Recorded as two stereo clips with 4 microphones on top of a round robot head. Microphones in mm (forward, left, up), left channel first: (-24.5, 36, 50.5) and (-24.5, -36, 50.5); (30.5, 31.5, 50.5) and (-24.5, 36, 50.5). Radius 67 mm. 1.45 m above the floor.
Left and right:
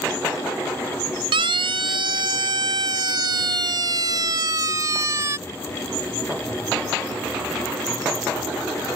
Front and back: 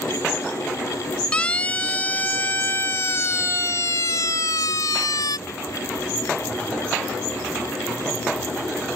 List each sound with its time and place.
1.3 s a siren: 80° right; by 5.4 s 30° right